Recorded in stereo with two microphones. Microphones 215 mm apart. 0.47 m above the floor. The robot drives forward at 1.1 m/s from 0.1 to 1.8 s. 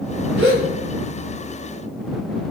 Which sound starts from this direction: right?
A gasp, at 0.4 s.